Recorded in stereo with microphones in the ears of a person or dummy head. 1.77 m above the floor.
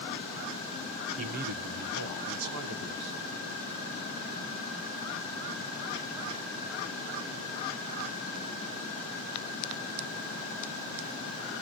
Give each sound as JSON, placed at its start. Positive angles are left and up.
{"t": 1.2, "sound": "a man speaking", "side_deg": -40, "distance_m": 1.4}